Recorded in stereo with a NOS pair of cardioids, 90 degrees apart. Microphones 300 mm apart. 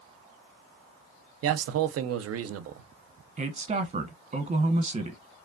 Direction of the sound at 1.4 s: 50° right.